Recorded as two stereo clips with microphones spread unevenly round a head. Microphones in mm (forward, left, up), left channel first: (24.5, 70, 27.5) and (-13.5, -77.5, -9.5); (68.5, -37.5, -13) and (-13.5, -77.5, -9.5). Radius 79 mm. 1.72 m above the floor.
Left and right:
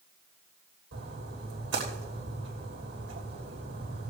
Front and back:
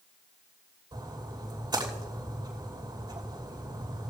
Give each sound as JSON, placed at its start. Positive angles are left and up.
{"t": 0.9, "sound": "a splash", "azimuth_deg": -115, "distance_m": 2.5}